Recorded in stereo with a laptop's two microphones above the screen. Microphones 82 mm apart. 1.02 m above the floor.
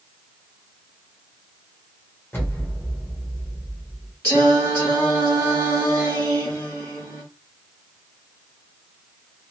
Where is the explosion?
25° left (ahead or behind), 0.8 m.